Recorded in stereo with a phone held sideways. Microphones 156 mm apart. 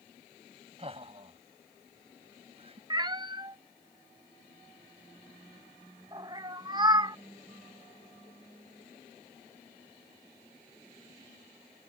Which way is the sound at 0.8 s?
35° right (ahead or behind).